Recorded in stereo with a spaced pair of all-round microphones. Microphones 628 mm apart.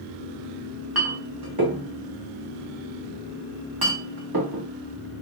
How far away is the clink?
About 1.6 m.